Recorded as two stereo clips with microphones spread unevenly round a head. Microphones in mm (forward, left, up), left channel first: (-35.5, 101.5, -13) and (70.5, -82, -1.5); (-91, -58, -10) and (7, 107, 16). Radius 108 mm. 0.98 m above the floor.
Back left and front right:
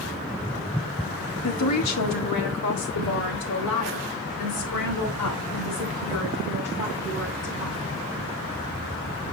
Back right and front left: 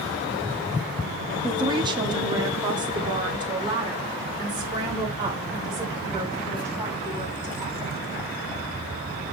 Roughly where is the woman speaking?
Behind left.